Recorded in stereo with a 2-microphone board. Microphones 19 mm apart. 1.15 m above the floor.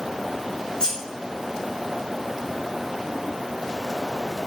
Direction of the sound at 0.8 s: 35° left (ahead or behind).